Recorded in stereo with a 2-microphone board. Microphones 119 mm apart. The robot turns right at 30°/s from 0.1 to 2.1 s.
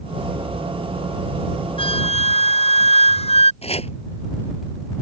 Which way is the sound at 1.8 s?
50° left (ahead or behind).